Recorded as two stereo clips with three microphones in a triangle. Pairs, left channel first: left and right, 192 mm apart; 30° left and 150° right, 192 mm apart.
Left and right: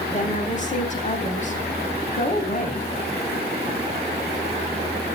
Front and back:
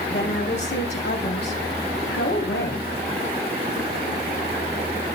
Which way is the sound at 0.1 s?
45° left.